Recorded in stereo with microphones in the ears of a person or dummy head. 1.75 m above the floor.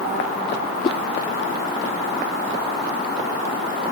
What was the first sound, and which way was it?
A whoosh, 35° left (ahead or behind).